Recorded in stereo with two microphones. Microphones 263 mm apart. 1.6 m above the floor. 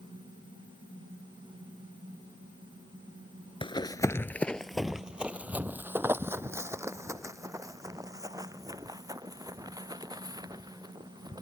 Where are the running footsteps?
20° left (ahead or behind); by 11.4 s 15° right (ahead or behind).